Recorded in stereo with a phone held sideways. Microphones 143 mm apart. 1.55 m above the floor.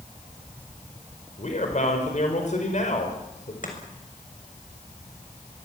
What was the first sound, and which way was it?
A man speaking, 55° left (ahead or behind).